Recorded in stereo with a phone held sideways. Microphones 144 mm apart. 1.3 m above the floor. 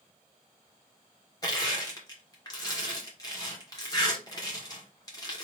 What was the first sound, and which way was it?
Crushing, 25° left (ahead or behind).